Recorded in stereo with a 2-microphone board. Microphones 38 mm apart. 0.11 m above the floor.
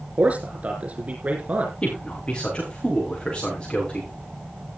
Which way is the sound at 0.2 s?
40° right (ahead or behind).